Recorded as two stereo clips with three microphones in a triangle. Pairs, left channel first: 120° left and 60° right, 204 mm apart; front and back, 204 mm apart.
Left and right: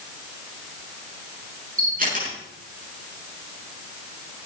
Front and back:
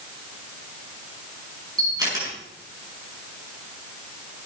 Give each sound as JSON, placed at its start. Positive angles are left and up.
{"t": 1.8, "sound": "a camera shutter", "azimuth_deg": -110, "distance_m": 8.5}